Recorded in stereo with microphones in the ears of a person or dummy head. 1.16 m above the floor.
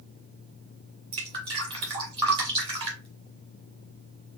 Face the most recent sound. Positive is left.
turn(degrees=-25)  # may be behind; listen again after turning